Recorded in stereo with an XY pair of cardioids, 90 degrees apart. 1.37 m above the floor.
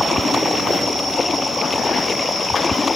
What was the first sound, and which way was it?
Running water, 35° left.